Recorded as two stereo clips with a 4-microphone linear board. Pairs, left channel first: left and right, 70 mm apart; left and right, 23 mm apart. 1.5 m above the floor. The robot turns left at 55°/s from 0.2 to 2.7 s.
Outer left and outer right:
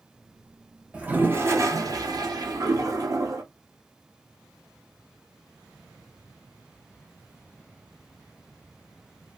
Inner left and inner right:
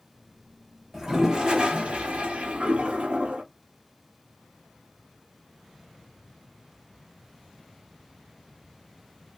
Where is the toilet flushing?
15° right, 0.6 m; by 3.4 s 115° right, 0.6 m.